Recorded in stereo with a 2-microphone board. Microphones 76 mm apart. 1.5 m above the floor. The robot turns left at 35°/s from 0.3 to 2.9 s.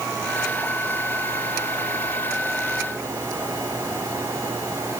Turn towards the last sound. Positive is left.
No sound to turn to.